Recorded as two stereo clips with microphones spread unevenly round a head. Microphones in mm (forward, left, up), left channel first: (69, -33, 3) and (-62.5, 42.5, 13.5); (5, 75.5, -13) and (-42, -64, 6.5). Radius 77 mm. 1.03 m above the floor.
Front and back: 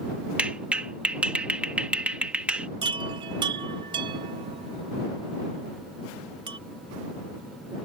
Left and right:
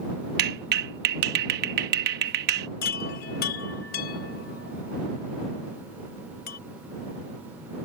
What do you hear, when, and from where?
0.4 s a clap: 125° right
2.8 s a chime: 90° left